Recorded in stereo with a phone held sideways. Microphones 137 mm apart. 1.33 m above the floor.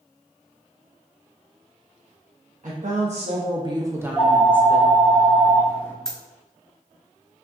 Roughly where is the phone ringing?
Centre.